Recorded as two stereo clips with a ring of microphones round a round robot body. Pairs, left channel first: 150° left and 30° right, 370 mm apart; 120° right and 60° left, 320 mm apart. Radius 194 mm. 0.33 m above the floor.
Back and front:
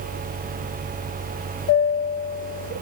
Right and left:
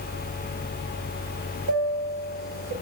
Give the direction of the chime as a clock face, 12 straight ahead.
9 o'clock.